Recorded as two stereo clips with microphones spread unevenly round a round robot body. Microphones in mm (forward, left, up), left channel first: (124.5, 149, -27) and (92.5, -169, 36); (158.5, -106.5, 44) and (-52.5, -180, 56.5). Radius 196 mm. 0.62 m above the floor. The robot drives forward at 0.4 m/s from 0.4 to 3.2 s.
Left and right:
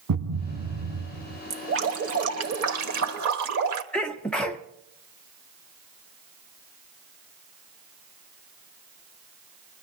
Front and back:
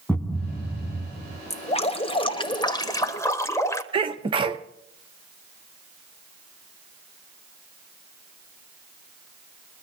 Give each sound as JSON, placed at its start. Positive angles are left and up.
{"t": 0.1, "sound": "a thud", "azimuth_deg": -65, "distance_m": 1.7}
{"t": 1.5, "sound": "dripping", "azimuth_deg": -40, "distance_m": 2.0}
{"t": 3.9, "sound": "a sneeze", "azimuth_deg": 150, "distance_m": 0.6}